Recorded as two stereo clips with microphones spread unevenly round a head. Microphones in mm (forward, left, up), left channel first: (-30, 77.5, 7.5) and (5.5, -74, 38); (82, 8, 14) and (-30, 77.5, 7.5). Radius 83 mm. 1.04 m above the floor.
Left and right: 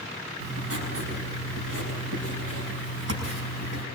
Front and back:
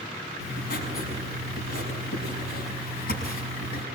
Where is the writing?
70° right, 6.5 m.